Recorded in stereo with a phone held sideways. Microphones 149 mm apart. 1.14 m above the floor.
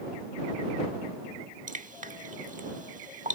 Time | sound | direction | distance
1.7 | dripping | 60° right (ahead or behind) | ?